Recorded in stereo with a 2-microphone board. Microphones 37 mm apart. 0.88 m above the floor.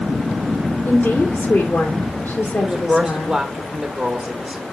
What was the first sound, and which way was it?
A woman speaking, 65° left (ahead or behind).